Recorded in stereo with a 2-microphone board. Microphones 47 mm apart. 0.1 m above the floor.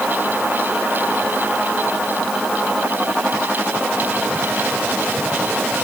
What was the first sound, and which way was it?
Only background noise.